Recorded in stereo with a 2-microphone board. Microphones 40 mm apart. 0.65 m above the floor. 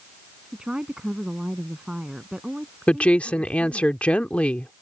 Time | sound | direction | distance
0.5 | a woman speaking | 20° right (ahead or behind) | ?
2.9 | a woman speaking | 30° left (ahead or behind) | ?